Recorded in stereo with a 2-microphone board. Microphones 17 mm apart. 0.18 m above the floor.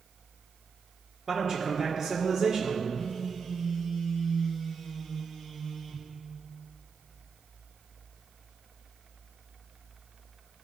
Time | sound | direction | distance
1.3 | a man speaking | 30° right (ahead or behind) | 3 m
2.9 | a phone buzzing | 10° left (ahead or behind) | 3 m